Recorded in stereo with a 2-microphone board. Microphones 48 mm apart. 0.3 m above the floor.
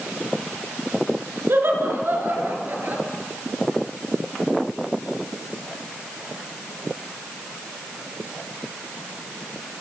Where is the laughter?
55° right (ahead or behind), 5 m; by 3.0 s 40° right (ahead or behind), 6.5 m.